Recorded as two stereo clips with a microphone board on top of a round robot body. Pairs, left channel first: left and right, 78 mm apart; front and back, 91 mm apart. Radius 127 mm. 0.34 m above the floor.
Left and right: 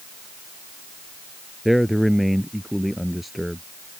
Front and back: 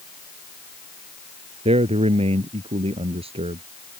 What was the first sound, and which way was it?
A man speaking, straight behind.